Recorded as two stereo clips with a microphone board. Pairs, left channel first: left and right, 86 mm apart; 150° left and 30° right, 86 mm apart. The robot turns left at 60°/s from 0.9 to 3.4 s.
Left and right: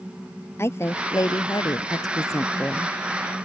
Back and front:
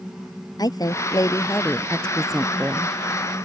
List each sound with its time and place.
0.6 s a woman speaking: 140° left; by 3.0 s 15° left